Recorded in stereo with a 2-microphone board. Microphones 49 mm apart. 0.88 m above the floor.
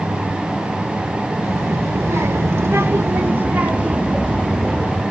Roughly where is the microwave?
I don't hear a microwave.